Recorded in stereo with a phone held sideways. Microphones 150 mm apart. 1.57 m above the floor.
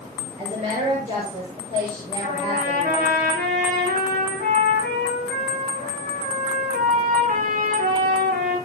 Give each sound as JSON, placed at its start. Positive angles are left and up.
{"t": 0.4, "sound": "a woman speaking", "side_deg": -50, "distance_m": 7.0}
{"t": 2.2, "sound": "a trumpet", "side_deg": -90, "distance_m": 9.0}